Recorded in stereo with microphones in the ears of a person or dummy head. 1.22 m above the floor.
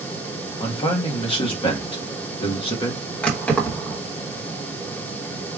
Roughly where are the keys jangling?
Centre.